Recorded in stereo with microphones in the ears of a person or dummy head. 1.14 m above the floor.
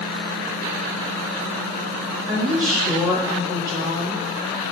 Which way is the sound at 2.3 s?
20° right (ahead or behind).